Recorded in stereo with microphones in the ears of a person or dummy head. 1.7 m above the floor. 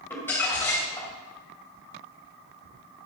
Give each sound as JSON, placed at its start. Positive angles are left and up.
{"t": 0.1, "sound": "crumpling", "side_deg": 15, "distance_m": 2.5}